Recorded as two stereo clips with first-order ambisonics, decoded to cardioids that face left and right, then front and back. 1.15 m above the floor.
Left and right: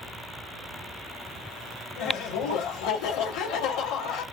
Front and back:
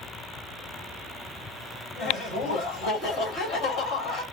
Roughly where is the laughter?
Ahead left.